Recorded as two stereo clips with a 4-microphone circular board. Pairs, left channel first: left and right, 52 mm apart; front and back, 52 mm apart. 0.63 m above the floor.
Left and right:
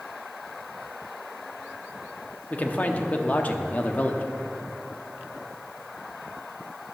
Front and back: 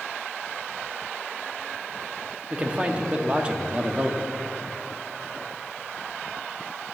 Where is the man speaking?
125° left, 0.8 m.